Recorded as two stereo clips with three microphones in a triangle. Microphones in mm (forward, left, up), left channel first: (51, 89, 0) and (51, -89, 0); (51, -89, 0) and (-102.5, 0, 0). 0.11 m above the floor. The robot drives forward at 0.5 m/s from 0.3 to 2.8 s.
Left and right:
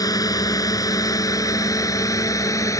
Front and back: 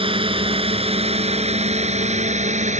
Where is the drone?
140° left; by 2.8 s 155° left.